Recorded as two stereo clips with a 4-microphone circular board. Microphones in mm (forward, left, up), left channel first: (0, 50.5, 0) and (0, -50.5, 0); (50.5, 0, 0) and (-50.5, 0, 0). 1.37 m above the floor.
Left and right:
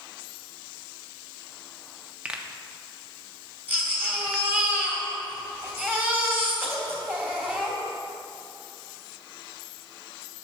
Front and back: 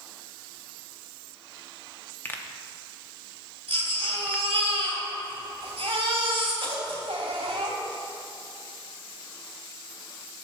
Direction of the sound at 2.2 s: 30° right.